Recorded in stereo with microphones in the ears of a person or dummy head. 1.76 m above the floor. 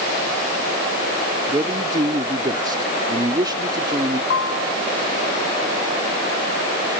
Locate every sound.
1.5 s a man speaking: 20° right (ahead or behind)
4.3 s a piano: 80° left